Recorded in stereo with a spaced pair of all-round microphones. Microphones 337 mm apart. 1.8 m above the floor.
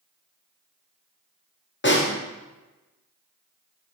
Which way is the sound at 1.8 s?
35° left (ahead or behind).